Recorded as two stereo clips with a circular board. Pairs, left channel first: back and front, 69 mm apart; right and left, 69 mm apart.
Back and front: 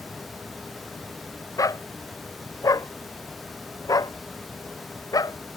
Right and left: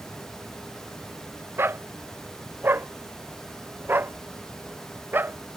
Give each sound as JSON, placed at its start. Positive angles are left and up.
{"t": 1.6, "sound": "a dog barking", "azimuth_deg": 145}